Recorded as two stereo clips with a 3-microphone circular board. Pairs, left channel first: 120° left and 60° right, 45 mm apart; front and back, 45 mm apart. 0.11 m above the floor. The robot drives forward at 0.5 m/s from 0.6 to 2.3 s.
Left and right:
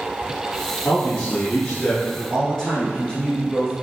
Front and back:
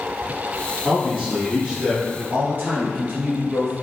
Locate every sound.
0.8 s a man speaking: 110° left, 1.4 m; by 2.2 s 150° left, 1.6 m
2.3 s a man speaking: straight behind, 1.6 m